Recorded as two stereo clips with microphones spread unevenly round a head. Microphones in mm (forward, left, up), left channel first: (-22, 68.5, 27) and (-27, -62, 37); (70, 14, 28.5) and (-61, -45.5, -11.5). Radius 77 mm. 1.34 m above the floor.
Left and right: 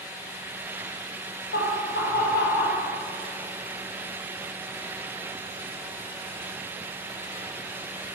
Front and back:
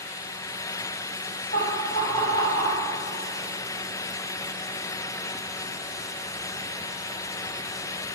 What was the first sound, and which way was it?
Laughter, 70° left.